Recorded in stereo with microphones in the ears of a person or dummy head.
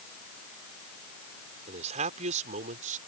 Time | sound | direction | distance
1.7 | a man speaking | 40° right (ahead or behind) | ?